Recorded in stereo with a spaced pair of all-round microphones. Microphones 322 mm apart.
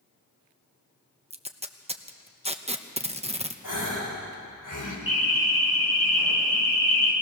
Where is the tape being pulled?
20° right (ahead or behind), 0.9 m.